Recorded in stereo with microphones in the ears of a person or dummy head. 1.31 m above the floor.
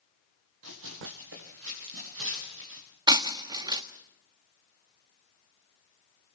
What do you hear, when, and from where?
0.6 s running footsteps: 75° right (ahead or behind), 4.5 m
3.1 s breaking glass: 20° right (ahead or behind), 1.3 m